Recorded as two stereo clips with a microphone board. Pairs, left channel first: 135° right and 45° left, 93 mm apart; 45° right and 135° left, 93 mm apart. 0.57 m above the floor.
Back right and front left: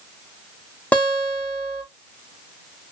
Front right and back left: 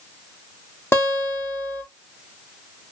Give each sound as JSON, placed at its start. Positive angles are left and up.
{"t": 0.9, "sound": "a guitar", "azimuth_deg": -75, "distance_m": 1.0}